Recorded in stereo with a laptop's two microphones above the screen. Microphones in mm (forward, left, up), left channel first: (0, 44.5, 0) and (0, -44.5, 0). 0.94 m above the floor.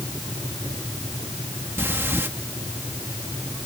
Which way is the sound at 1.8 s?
25° right (ahead or behind).